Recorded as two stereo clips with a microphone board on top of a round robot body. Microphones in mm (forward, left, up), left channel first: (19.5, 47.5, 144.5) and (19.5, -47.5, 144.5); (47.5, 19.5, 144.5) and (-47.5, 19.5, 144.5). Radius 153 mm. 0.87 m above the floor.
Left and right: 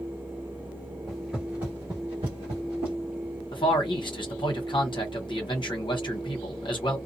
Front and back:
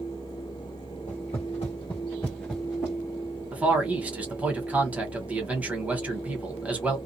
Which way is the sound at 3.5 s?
105° left.